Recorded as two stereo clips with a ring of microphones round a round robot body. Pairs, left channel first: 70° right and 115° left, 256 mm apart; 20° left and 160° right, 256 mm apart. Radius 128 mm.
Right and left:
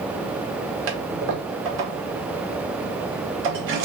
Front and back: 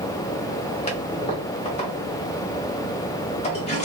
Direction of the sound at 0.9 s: 85° left.